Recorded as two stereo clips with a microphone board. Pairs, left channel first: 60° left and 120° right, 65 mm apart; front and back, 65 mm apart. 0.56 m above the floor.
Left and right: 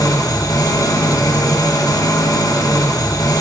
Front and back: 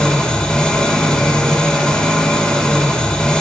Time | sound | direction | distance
0.0 | an engine running | 75° left | 0.8 m